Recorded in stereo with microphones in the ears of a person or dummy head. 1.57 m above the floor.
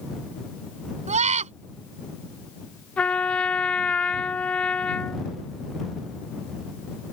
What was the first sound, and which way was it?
A scream, 40° right (ahead or behind).